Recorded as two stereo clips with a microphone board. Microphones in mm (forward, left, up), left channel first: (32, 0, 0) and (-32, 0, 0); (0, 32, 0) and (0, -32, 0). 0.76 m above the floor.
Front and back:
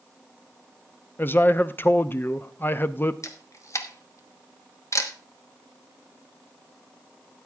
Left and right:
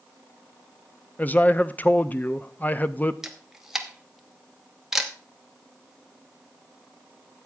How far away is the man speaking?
About 0.6 m.